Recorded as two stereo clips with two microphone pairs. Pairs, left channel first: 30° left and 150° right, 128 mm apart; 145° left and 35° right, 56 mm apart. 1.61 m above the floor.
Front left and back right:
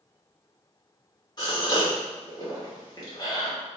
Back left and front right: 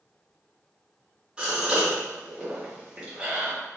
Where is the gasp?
20° left, 1.4 m.